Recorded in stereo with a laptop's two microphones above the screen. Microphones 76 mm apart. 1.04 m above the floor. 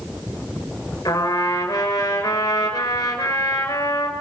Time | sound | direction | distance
1.1 | a trumpet | 65° left (ahead or behind) | 5.5 m